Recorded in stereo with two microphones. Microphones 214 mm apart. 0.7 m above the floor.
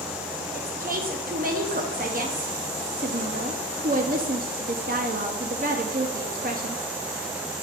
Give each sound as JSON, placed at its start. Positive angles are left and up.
{"t": 0.5, "sound": "a woman speaking", "side_deg": -40, "distance_m": 0.6}